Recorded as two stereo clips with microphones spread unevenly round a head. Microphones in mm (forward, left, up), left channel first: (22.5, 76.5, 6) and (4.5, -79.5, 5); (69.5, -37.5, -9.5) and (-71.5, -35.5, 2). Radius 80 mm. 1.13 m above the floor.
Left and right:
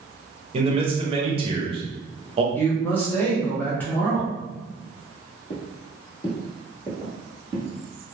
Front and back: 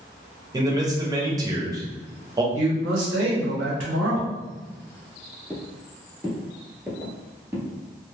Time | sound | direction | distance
0.5 | a man speaking | 125° right | 0.7 m
2.5 | a man speaking | 165° left | 0.9 m
5.5 | footsteps | 85° left | 1.3 m